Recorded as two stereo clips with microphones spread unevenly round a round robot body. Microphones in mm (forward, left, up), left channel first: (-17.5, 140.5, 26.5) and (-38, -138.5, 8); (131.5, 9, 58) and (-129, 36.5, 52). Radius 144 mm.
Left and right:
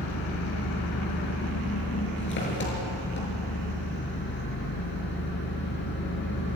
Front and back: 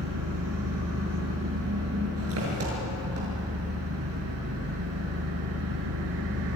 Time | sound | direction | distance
0.0 | an engine running | 135° left | 6.5 m